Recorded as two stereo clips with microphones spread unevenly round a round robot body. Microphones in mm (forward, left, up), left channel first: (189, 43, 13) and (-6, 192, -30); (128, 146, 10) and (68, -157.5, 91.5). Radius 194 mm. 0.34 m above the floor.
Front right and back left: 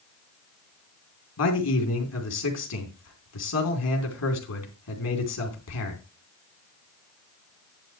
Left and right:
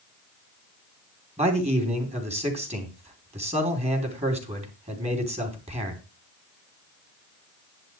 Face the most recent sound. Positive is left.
turn(degrees=-25)